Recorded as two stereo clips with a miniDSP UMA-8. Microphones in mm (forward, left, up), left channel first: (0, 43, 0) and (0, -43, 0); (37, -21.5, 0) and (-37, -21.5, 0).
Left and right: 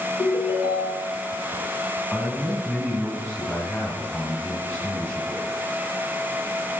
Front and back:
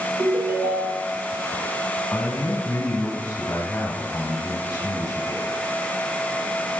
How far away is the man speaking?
About 1.9 m.